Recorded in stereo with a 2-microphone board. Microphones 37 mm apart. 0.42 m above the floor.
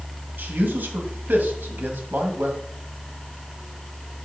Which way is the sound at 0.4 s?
60° right (ahead or behind).